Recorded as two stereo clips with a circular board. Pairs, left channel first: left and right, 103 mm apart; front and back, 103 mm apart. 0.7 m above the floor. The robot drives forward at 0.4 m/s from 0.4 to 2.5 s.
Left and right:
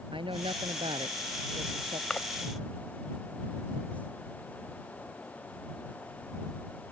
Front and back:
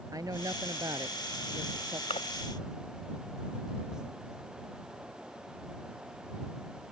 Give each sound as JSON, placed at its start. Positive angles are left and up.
{"t": 0.1, "sound": "a woman speaking", "azimuth_deg": -125}
{"t": 2.1, "sound": "a splash", "azimuth_deg": 10}